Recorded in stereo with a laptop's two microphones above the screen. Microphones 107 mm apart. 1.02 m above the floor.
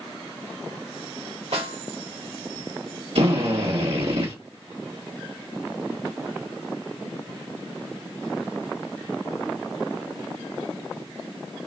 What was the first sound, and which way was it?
A snare drum, 75° right (ahead or behind).